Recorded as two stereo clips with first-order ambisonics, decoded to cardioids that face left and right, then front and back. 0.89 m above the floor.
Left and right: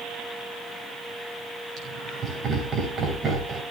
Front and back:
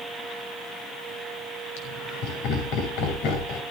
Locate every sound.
1.8 s laughter: 25° right, 5.5 m